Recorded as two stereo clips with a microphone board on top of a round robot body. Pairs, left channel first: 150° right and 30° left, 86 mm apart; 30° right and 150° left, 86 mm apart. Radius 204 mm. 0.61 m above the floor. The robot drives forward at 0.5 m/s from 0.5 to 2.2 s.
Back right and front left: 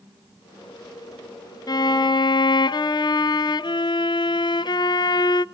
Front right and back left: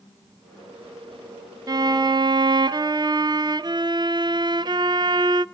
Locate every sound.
1.7 s a violin: straight behind, 0.5 m